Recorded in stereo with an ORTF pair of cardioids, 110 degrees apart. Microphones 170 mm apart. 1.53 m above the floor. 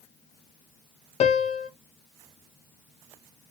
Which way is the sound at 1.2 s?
45° left.